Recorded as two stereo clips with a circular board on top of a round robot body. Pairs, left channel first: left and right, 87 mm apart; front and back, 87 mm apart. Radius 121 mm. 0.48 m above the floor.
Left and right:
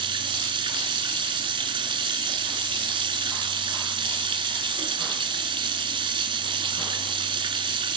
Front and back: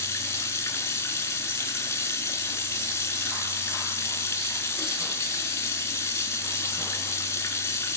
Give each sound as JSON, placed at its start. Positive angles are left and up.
{"t": 0.0, "sound": "running water", "azimuth_deg": -60, "distance_m": 3.0}